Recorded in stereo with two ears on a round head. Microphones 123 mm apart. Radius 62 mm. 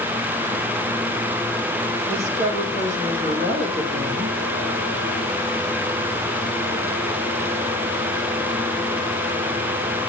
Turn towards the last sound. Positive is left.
turn(degrees=-50)  # may be behind; listen again after turning